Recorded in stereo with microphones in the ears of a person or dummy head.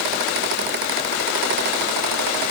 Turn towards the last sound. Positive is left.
No sound to turn to.